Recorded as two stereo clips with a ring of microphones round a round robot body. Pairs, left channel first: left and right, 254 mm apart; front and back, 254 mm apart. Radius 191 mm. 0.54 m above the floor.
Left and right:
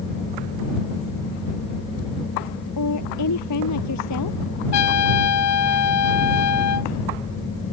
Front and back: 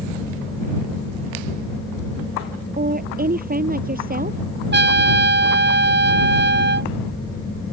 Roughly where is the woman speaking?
Behind left.